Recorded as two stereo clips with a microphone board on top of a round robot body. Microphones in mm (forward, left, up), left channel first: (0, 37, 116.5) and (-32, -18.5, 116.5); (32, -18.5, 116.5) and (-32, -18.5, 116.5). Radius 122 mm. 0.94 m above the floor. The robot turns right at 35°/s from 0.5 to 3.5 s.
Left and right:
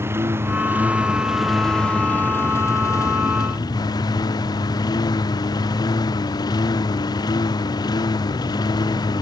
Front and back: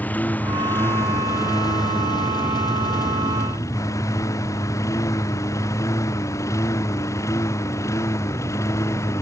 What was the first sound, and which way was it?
A lawn mower, 65° right.